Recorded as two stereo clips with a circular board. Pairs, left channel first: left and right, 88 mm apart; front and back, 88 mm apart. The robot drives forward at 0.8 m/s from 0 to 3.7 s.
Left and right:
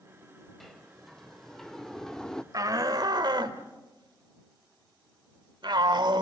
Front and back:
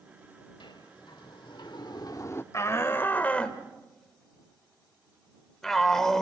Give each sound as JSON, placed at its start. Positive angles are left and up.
{"t": 0.6, "sound": "a sliding door", "azimuth_deg": 0, "distance_m": 1.7}
{"t": 2.5, "sound": "a shout", "azimuth_deg": -50, "distance_m": 1.8}